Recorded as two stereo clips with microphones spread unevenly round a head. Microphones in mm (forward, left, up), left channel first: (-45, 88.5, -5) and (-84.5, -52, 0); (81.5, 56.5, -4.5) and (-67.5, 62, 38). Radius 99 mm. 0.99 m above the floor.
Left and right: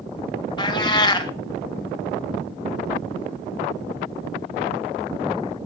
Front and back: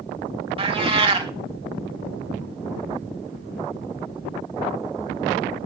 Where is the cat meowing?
135° left, 1.6 m.